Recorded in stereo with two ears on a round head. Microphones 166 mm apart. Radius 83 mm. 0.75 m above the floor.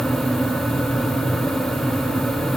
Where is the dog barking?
I don't hear a dog barking.